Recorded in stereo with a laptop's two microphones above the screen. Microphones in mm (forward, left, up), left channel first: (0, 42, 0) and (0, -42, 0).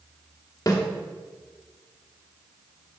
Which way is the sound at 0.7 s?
45° left (ahead or behind).